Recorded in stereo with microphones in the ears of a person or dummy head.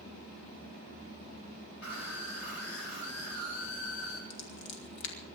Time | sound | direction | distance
1.8 | a scream | 85° left | 8.5 m
4.3 | scissors | 75° left (ahead or behind) | 3.5 m